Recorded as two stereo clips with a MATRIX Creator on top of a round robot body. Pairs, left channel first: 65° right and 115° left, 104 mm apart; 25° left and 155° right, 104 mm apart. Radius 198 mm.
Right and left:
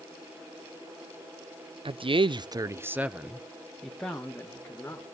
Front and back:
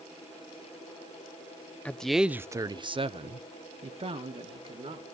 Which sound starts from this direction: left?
A man speaking, at 1.9 s.